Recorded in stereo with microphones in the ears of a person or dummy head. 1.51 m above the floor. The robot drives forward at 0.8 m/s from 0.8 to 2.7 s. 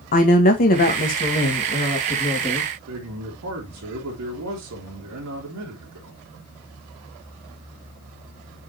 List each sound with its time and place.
0.1 s a woman speaking: 40° left (ahead or behind), 1.6 m; by 2.7 s 20° left (ahead or behind), 3 m
2.9 s a man speaking: 75° right (ahead or behind), 3 m